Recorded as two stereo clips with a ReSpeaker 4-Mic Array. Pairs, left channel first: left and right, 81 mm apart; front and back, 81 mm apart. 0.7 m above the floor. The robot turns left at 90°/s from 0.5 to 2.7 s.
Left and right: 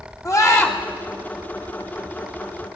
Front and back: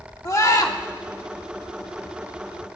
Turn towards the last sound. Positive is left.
turn(degrees=-155)